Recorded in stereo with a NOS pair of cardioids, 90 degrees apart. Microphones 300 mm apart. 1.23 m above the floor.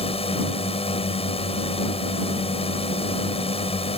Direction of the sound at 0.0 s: 20° left.